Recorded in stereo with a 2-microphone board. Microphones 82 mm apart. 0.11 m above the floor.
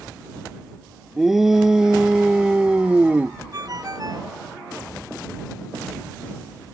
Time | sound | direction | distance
1.2 | a shout | 5° right (ahead or behind) | ?
3.5 | a ringtone | 45° right (ahead or behind) | ?